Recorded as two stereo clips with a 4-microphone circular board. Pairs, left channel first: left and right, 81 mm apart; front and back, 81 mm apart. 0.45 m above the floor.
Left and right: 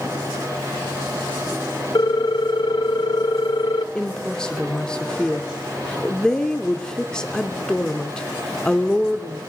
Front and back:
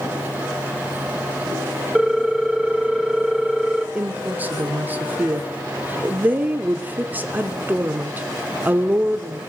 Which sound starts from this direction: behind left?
A woman speaking, at 4.0 s.